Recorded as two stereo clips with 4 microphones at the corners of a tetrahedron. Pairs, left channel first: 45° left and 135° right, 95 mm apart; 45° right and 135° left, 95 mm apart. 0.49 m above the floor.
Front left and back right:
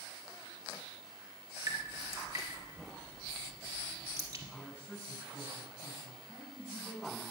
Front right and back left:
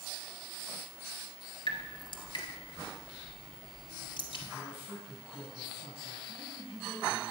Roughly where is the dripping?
Right.